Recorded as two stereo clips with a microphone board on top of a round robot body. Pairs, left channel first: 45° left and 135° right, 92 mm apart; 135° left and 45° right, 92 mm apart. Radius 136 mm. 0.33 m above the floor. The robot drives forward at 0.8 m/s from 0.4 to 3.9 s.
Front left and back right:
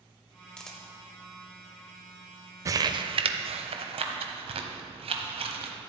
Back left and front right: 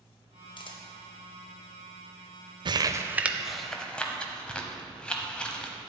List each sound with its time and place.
0.6 s a camera shutter: 125° left, 1.5 m; by 3.1 s 160° left, 3 m
2.6 s crumpling: 80° right, 0.7 m; by 5.8 s 145° right, 1.1 m